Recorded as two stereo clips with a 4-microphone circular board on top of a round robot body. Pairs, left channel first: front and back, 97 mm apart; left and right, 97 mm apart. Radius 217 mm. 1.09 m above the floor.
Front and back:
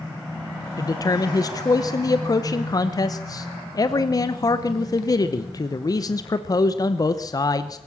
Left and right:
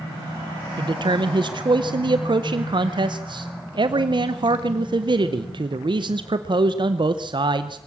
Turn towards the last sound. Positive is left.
turn(degrees=-50)